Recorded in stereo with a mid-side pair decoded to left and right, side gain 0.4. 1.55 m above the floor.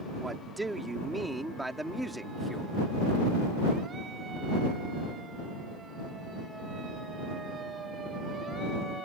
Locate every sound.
0.2 s a man speaking: 20° right; by 2.7 s straight ahead